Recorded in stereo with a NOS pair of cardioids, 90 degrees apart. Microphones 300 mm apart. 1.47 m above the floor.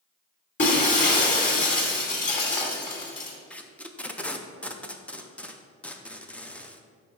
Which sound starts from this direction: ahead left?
Breaking glass, at 0.6 s.